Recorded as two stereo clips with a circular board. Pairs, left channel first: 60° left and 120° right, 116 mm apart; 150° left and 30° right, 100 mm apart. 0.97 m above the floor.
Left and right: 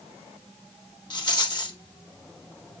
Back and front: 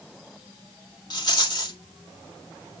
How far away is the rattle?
About 2 m.